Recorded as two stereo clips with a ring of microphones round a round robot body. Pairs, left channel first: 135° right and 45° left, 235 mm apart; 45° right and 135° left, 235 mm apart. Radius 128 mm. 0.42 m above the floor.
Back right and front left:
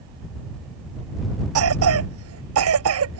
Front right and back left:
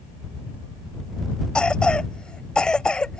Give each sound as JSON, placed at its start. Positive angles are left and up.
{"t": 1.6, "sound": "a cough", "azimuth_deg": 40}